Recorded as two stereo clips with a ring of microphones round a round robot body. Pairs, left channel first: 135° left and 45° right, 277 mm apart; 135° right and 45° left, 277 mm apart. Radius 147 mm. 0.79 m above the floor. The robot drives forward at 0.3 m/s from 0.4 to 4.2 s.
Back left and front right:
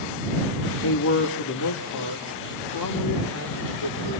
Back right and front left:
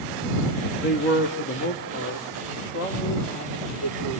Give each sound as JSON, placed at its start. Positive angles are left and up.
{"t": 0.8, "sound": "a man speaking", "azimuth_deg": 175, "distance_m": 1.9}